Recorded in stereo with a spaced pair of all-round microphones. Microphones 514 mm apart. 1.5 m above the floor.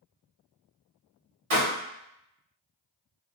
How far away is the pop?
About 1.8 m.